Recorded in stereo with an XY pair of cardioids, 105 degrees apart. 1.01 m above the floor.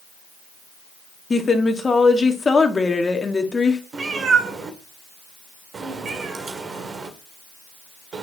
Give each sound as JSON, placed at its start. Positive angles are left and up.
{"t": 1.3, "sound": "a woman speaking", "azimuth_deg": 30, "distance_m": 1.5}
{"t": 3.9, "sound": "a cat meowing", "azimuth_deg": -45, "distance_m": 1.9}